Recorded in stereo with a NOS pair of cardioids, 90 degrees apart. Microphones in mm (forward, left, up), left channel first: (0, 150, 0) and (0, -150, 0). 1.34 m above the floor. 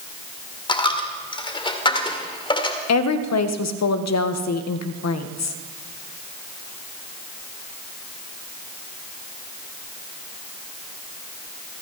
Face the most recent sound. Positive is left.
turn(degrees=65)